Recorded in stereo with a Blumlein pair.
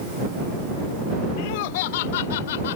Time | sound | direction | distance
1.4 | laughter | 45° left | ?